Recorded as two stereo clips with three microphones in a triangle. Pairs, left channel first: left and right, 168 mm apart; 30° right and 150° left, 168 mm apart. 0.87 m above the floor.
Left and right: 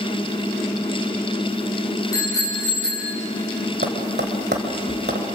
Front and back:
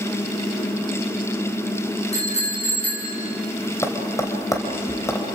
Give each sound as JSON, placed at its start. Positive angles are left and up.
{"t": 2.1, "sound": "a bicycle bell", "azimuth_deg": 20, "distance_m": 7.5}
{"t": 3.8, "sound": "tapping", "azimuth_deg": -105, "distance_m": 2.5}